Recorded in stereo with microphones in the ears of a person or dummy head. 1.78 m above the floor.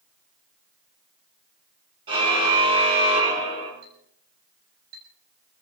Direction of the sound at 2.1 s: 25° right (ahead or behind).